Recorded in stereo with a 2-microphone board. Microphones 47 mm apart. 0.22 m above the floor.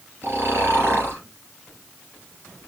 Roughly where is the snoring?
Right.